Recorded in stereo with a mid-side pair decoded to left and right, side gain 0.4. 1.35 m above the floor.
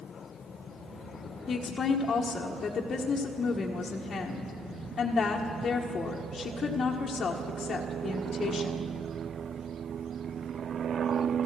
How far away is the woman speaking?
About 1.4 m.